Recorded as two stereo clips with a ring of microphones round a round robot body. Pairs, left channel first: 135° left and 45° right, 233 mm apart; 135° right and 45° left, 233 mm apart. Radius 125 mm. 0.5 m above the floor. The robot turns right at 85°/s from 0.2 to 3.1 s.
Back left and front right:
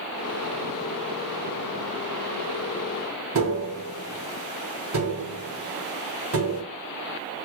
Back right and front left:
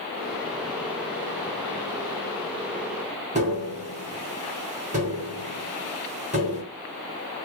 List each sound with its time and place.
3.4 s tapping: 15° right, 3.5 m